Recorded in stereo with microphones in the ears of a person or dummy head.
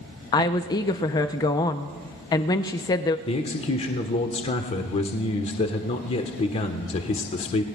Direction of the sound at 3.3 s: 30° left (ahead or behind).